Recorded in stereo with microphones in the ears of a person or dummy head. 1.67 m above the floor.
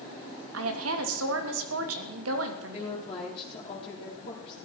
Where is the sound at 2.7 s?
35° left (ahead or behind), 3.5 m.